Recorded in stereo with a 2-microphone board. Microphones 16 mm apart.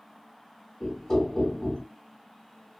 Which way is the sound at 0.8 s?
25° left (ahead or behind).